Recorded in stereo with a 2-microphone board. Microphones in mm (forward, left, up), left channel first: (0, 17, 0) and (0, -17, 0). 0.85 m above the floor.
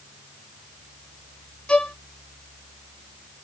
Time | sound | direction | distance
1.7 | a violin | 25° left (ahead or behind) | 0.7 m